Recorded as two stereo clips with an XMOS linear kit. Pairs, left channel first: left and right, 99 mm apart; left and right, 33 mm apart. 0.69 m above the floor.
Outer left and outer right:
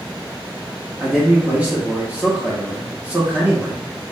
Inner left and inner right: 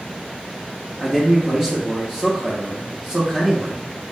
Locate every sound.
1.0 s a man speaking: 15° right (ahead or behind), 0.8 m